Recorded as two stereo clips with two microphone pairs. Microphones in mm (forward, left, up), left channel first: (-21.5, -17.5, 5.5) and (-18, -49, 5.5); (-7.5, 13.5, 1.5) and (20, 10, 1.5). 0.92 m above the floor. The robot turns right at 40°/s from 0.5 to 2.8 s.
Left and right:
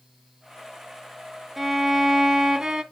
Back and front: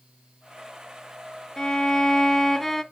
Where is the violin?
165° right, 0.6 m; by 2.8 s 115° right, 0.6 m.